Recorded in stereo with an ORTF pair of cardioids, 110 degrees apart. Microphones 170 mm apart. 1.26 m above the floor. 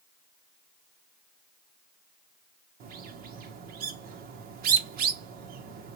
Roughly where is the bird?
Ahead right.